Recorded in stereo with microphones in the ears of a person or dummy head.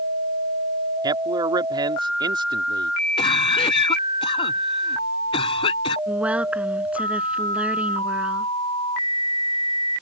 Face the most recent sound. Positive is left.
turn(degrees=-5)  # may be behind; listen again after turning